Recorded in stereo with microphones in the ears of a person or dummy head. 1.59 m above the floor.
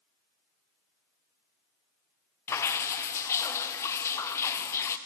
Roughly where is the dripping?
Centre.